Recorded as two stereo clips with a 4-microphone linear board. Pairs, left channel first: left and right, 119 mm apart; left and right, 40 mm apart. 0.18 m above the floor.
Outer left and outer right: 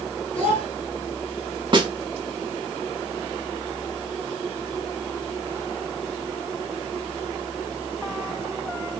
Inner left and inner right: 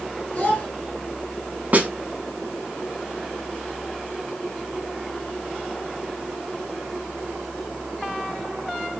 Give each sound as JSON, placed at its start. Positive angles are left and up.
{"t": 0.3, "sound": "a child speaking", "side_deg": 50, "distance_m": 1.6}
{"t": 1.7, "sound": "a snare drum", "side_deg": -40, "distance_m": 0.5}